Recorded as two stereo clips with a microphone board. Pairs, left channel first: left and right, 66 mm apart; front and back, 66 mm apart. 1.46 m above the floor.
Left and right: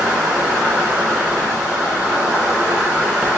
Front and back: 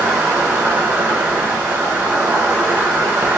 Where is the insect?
145° right, 0.9 m.